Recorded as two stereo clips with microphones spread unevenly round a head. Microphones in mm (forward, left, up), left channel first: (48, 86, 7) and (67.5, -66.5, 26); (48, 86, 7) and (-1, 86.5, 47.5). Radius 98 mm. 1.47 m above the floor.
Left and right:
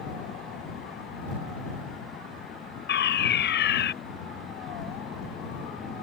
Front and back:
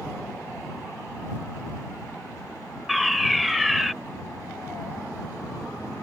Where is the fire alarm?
95° left.